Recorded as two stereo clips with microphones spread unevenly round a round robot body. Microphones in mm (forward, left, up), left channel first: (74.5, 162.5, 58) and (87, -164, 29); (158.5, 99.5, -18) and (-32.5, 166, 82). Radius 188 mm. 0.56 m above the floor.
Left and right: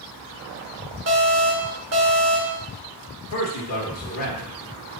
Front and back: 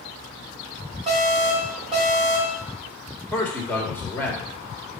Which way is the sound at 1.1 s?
115° right.